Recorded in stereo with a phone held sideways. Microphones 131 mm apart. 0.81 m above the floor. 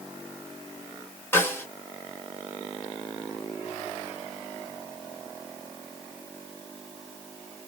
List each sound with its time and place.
1.3 s a snare drum: 15° left (ahead or behind), 1.2 m